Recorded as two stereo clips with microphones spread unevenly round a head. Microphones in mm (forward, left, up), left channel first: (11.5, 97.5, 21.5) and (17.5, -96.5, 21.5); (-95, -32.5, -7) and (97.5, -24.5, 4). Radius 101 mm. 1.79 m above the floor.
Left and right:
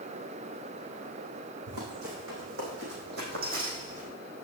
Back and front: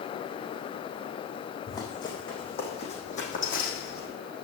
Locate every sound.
1.7 s running footsteps: 105° right, 5.5 m; by 4.1 s 145° right, 4 m